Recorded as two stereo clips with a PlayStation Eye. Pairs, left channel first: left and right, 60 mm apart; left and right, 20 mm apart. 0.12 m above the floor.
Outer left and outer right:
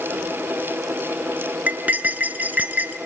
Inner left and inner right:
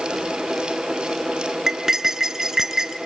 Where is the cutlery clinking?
30° right (ahead or behind), 1.0 m.